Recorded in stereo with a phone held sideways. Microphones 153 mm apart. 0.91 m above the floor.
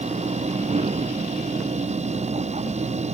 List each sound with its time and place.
0.0 s a machine running: 45° right (ahead or behind)